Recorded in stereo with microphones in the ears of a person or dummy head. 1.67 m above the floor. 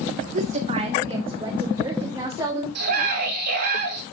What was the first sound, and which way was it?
A woman speaking, 45° right (ahead or behind).